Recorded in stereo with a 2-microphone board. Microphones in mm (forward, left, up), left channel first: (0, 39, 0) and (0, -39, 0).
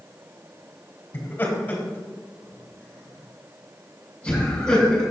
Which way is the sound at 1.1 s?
25° left (ahead or behind).